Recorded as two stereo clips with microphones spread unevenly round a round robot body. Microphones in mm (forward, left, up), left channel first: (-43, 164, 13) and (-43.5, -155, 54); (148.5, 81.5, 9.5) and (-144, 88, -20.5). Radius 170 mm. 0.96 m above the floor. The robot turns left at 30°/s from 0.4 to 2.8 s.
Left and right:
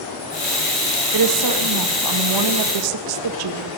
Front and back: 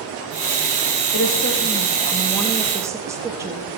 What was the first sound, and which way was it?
A woman speaking, 50° right.